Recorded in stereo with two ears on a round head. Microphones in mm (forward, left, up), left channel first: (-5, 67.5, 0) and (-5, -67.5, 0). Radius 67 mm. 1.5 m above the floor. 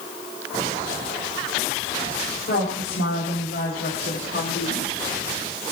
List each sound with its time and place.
2.5 s a woman speaking: 70° left (ahead or behind), 5 m; by 4.9 s 85° left, 3.5 m